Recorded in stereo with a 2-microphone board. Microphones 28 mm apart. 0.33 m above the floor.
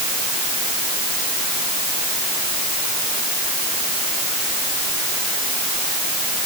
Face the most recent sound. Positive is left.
No sound to turn to.